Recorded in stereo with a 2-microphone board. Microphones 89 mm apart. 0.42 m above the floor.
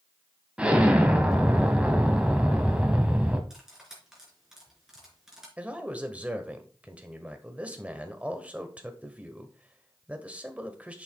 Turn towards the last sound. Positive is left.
turn(degrees=-15)  # may be behind; listen again after turning